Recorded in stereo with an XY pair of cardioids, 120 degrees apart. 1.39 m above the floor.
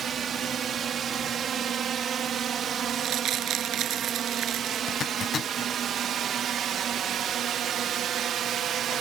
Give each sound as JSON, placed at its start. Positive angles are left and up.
{"t": 0.0, "sound": "a drone", "azimuth_deg": -50}
{"t": 2.9, "sound": "crumpling", "azimuth_deg": -65}
{"t": 4.9, "sound": "a zipper", "azimuth_deg": 45}